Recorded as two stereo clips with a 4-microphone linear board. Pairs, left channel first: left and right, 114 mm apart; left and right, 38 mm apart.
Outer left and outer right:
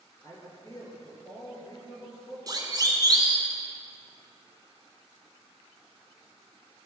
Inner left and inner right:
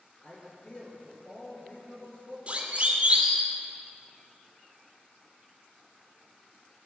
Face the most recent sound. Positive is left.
turn(degrees=-35)  # may be behind; listen again after turning